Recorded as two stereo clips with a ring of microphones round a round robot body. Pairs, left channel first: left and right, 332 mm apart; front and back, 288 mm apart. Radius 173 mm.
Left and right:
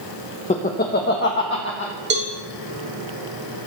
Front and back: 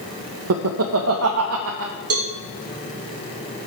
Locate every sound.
0.5 s laughter: 155° left, 0.6 m; by 1.9 s 140° left, 1.4 m
2.1 s a cowbell: 145° right, 1.1 m